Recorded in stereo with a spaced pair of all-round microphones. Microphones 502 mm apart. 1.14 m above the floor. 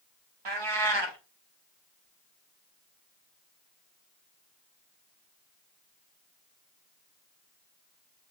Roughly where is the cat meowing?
Right.